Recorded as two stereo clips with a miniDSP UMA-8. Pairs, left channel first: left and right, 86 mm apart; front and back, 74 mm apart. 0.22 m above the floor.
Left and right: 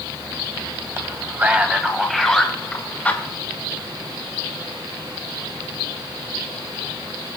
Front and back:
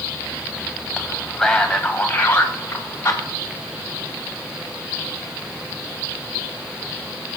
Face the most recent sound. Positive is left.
turn(degrees=30)